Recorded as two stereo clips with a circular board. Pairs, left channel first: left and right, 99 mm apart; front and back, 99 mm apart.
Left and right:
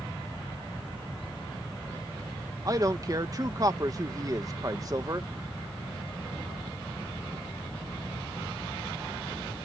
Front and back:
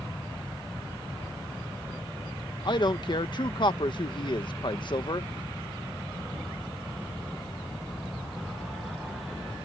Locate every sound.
2.6 s a man speaking: 40° right